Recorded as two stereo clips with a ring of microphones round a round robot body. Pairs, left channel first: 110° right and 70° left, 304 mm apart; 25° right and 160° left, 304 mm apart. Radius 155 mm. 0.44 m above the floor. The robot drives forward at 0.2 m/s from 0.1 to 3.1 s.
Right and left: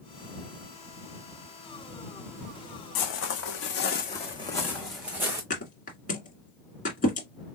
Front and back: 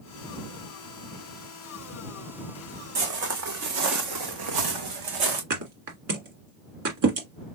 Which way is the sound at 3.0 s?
145° right.